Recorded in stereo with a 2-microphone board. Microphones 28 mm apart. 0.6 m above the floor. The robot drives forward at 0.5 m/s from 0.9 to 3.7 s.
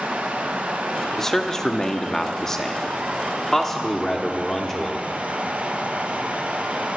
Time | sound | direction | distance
0.0 | running water | 85° right | 2.5 m
1.2 | a man speaking | 20° left (ahead or behind) | 0.9 m